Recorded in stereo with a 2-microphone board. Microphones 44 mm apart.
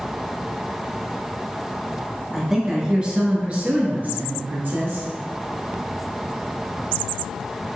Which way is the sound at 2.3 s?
5° right (ahead or behind).